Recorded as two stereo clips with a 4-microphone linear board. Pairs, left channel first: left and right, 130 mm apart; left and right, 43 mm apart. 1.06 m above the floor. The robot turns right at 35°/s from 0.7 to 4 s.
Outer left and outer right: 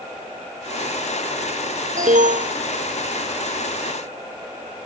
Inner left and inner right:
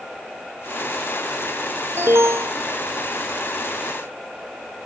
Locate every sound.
2.0 s an alarm: 80° right